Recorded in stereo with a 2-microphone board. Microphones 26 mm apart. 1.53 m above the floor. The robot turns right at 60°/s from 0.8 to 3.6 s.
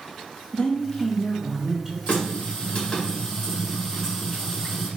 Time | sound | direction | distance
0.5 | a woman speaking | 140° left | 0.8 m
2.1 | a running tap | 80° left | 1.8 m